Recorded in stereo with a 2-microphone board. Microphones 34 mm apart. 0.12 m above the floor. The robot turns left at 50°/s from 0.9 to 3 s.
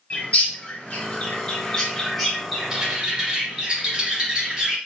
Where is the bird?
40° left (ahead or behind), 2 m; by 4.8 s 20° right (ahead or behind), 2 m.